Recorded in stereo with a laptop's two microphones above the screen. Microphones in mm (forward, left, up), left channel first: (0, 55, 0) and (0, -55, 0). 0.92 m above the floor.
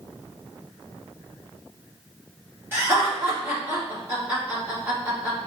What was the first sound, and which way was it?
Laughter, 20° right (ahead or behind).